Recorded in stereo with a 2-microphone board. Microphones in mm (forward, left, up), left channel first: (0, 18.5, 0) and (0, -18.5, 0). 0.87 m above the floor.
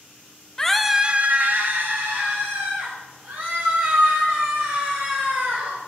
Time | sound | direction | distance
0.6 | a scream | 15° left (ahead or behind) | 0.6 m